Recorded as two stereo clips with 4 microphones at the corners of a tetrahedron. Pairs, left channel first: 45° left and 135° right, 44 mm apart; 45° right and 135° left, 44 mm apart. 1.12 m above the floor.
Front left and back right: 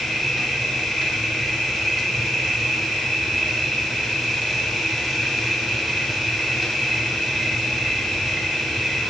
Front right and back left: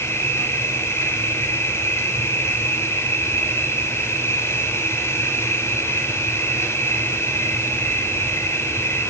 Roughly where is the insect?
Ahead right.